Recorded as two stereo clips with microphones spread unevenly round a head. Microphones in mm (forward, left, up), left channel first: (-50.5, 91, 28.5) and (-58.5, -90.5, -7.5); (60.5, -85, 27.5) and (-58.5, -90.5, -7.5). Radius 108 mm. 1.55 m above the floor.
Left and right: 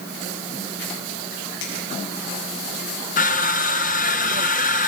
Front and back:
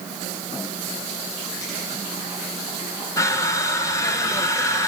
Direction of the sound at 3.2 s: 60° left.